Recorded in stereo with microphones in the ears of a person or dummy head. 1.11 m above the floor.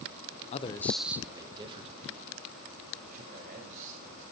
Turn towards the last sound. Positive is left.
turn(degrees=-40)  # may be behind; listen again after turning